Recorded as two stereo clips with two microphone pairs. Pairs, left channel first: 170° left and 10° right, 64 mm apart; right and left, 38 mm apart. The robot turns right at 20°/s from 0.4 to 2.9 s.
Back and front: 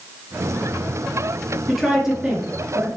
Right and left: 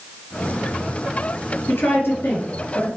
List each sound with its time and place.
1.7 s a woman speaking: 95° right, 3 m; by 2.9 s 70° right, 3 m